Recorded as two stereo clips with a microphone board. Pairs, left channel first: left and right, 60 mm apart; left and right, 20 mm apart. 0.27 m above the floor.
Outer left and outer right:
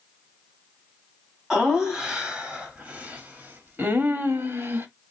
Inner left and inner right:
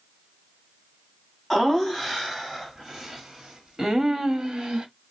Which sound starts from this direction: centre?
Laughter, at 1.5 s.